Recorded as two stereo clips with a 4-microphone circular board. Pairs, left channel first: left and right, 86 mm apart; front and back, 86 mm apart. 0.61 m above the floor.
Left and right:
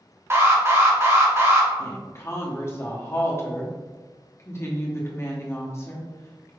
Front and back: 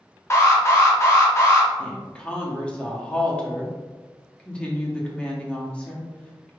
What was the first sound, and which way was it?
An alarm, 45° right.